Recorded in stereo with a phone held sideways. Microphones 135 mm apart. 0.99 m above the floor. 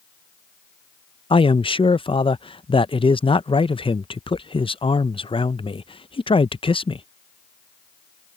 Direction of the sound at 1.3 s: 40° left (ahead or behind).